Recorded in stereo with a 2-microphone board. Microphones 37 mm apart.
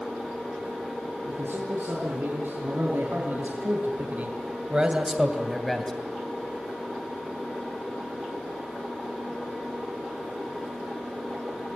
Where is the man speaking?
80° right, 6.5 m; by 5.9 s 10° left (ahead or behind), 3 m.